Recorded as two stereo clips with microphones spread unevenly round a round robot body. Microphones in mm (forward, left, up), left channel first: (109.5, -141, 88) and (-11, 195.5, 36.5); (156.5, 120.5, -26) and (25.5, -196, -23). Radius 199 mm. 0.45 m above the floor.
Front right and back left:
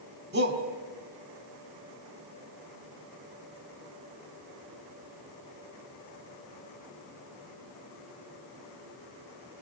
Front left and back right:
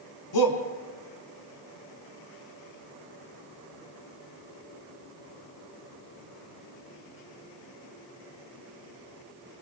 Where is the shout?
50° left, 4.5 m.